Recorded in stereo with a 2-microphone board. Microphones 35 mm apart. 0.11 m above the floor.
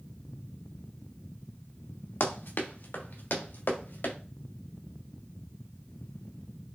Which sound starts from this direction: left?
Running footsteps, at 2.2 s.